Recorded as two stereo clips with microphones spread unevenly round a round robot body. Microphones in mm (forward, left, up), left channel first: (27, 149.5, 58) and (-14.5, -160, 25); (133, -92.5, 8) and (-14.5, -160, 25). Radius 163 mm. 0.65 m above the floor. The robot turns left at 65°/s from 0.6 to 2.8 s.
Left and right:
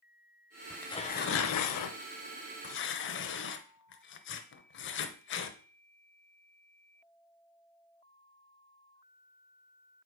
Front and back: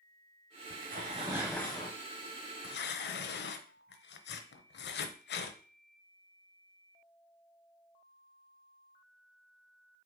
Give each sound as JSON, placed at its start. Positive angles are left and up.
{"t": 0.7, "sound": "tearing paper", "azimuth_deg": 170, "distance_m": 0.7}